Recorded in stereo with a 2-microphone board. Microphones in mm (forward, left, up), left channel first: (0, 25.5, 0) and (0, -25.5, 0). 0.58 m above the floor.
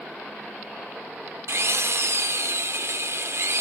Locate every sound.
1.5 s a drill: 60° right (ahead or behind), 0.7 m